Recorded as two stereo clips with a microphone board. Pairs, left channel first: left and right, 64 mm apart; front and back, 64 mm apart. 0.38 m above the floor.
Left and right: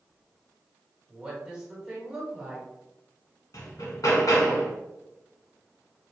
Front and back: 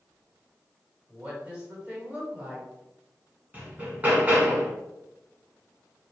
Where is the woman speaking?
150° right, 1.4 m.